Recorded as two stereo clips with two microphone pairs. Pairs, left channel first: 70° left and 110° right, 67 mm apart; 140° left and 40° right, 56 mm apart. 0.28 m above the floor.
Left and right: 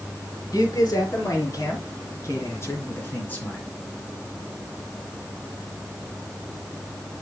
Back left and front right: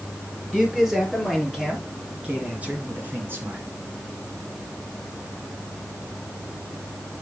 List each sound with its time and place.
0.5 s a man speaking: 45° left, 5.5 m; by 3.6 s straight ahead, 3 m